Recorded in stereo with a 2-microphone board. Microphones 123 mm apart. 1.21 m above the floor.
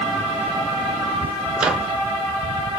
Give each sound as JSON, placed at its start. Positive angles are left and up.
{"t": 1.6, "sound": "a microwave", "side_deg": -10, "distance_m": 0.8}